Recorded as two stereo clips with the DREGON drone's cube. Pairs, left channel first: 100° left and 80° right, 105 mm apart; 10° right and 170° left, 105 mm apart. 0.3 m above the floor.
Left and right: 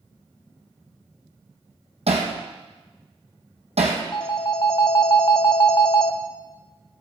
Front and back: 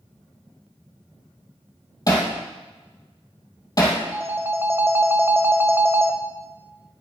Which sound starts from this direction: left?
A phone ringing, at 4.1 s.